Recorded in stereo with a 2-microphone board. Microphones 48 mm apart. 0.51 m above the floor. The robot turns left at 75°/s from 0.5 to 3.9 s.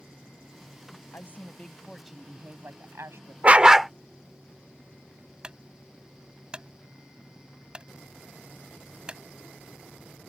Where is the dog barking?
145° right; by 3.9 s straight behind.